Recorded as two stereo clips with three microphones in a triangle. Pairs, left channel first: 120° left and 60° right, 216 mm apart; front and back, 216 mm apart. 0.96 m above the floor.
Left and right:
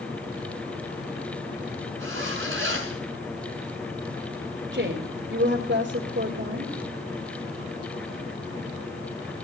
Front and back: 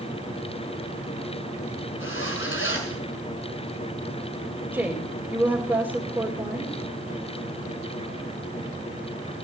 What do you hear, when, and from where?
2.0 s a zipper: 30° right, 7 m
4.7 s a woman speaking: 100° right, 3.5 m